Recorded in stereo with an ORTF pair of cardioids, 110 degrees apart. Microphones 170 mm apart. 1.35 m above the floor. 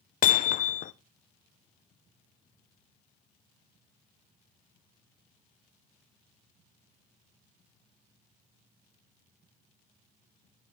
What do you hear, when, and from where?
0.2 s hammering: 55° left, 0.5 m